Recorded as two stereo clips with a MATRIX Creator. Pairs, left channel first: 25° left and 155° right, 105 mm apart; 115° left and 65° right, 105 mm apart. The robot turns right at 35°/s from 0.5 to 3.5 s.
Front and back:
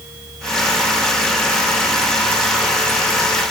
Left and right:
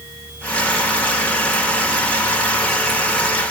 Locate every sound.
Only background noise.